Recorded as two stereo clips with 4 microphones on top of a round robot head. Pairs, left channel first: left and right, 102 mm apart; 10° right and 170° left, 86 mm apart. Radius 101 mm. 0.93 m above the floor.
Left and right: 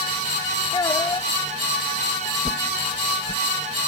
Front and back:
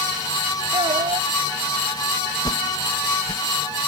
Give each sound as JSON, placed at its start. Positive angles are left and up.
{"t": 0.7, "sound": "a child speaking", "azimuth_deg": 145}
{"t": 2.5, "sound": "a whoosh", "azimuth_deg": 35}